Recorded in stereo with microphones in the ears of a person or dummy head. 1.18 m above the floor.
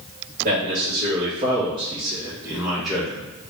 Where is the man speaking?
45° right (ahead or behind), 2.0 m; by 3.2 s 5° left (ahead or behind), 1.2 m.